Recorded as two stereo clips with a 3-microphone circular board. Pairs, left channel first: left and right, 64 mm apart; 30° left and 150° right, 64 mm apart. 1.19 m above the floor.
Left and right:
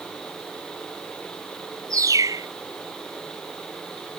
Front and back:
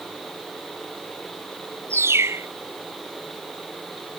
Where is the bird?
110° right.